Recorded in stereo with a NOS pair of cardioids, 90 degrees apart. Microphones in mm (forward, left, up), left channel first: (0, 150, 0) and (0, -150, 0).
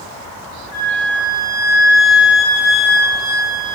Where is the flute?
65° left, 0.7 m.